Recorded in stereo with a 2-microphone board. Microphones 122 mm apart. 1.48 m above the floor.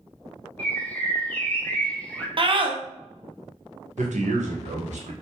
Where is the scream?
45° right (ahead or behind), 0.8 m.